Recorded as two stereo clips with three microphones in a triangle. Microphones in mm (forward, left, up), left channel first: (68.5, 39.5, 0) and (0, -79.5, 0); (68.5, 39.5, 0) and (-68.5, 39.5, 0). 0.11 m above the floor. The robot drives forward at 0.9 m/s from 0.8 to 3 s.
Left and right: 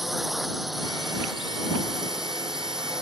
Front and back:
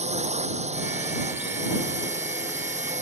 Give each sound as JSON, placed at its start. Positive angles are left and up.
{"t": 0.0, "sound": "a drone", "azimuth_deg": 150}